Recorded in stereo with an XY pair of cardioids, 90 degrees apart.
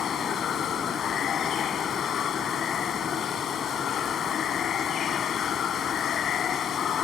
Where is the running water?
65° left.